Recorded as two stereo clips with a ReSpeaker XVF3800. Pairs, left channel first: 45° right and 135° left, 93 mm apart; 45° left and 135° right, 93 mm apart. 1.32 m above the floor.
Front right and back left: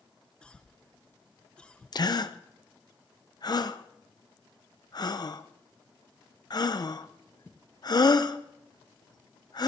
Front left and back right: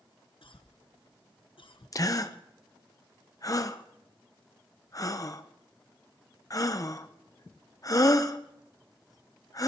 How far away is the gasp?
About 0.7 m.